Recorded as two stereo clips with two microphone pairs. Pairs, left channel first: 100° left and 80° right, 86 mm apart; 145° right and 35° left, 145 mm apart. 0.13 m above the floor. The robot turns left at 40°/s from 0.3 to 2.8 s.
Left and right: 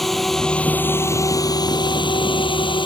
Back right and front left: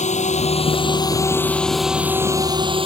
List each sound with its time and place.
0.0 s a drone: 175° right; by 2.9 s 85° left